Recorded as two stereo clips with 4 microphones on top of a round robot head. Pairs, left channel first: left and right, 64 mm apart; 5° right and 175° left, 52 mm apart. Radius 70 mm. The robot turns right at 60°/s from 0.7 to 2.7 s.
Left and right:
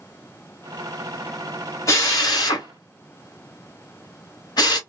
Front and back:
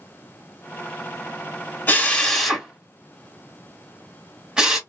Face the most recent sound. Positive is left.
turn(degrees=95)